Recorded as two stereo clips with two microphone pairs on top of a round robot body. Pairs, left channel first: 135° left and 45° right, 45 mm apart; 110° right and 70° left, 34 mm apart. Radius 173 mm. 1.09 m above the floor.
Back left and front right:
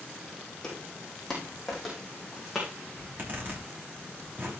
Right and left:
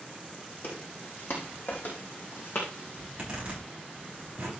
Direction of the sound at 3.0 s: Straight ahead.